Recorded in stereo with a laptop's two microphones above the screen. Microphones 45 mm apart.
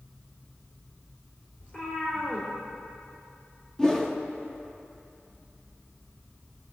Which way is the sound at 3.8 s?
15° left (ahead or behind).